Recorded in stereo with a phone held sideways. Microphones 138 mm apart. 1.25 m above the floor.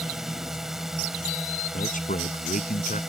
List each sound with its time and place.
0.0 s a drone: centre (ahead or behind)
1.7 s a man speaking: 70° left (ahead or behind)